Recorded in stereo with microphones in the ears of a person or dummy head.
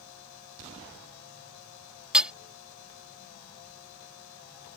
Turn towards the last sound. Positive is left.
turn(degrees=-10)  # may be behind; listen again after turning